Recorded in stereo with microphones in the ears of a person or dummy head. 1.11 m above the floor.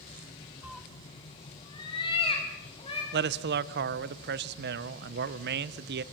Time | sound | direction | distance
0.6 | a cat meowing | centre (ahead or behind) | 0.7 m
3.1 | a man speaking | 50° right (ahead or behind) | 0.7 m